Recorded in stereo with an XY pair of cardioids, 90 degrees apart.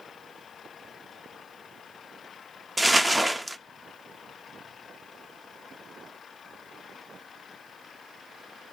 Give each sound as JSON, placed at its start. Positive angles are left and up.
{"t": 2.8, "sound": "crumpling", "azimuth_deg": -15, "distance_m": 0.6}